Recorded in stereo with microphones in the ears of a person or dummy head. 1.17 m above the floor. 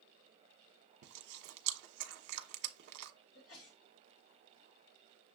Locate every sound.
1.0 s chewing: 55° right (ahead or behind), 0.8 m
3.4 s a sneeze: 65° left (ahead or behind), 1.6 m